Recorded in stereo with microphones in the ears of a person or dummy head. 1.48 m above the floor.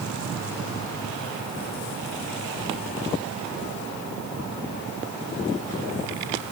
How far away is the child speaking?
No child speaking in this recording.